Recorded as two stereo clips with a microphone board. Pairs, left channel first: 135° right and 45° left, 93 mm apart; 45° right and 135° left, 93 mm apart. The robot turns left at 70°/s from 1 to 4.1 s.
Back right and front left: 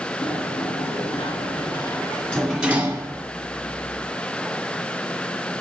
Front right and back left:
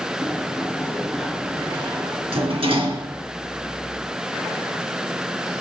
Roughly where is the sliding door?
Behind right.